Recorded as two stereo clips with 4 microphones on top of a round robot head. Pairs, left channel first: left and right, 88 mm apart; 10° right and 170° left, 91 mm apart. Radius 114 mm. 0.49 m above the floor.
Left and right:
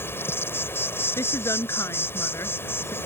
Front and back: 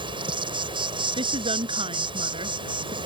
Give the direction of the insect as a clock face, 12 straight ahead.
7 o'clock.